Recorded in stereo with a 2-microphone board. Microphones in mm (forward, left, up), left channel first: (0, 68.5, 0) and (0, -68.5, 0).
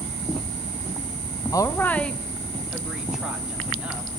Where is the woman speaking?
25° left (ahead or behind), 0.5 m; by 4.1 s 10° right (ahead or behind), 2.5 m.